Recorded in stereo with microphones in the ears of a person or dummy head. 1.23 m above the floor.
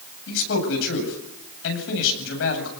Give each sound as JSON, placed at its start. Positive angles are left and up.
{"t": 0.3, "sound": "a man speaking", "side_deg": 75, "distance_m": 8.5}